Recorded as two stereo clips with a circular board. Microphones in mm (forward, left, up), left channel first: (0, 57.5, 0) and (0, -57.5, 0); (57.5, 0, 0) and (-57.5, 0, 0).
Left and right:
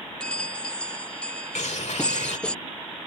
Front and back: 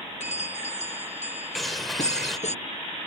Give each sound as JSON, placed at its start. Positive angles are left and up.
{"t": 0.2, "sound": "a bell", "azimuth_deg": 10}
{"t": 1.6, "sound": "a bird", "azimuth_deg": 90}